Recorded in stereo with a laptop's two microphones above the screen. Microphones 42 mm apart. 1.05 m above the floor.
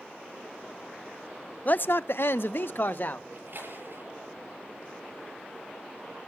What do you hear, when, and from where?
1.6 s a man speaking: 40° left (ahead or behind), 0.5 m; by 3.2 s 50° left (ahead or behind), 1.4 m
3.3 s a splash: 55° right (ahead or behind), 8 m